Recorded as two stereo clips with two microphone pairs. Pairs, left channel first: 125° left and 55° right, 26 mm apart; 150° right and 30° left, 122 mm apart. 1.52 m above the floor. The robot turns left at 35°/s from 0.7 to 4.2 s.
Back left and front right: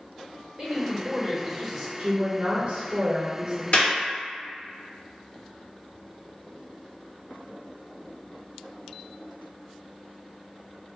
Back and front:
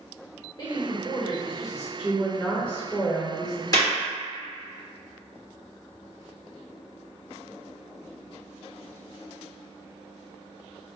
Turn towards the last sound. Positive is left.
turn(degrees=135)